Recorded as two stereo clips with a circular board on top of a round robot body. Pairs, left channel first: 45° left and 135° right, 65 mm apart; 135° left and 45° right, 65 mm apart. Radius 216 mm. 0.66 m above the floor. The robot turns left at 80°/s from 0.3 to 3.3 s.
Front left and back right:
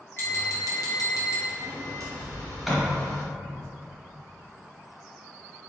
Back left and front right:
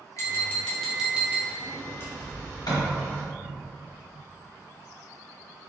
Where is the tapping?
95° left, 1.3 m; by 1.5 s straight ahead, 1.3 m.